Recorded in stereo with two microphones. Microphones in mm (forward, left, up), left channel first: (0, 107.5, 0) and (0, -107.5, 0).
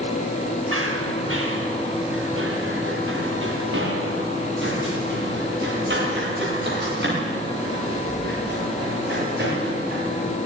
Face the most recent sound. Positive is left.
turn(degrees=-50)  # may be behind; listen again after turning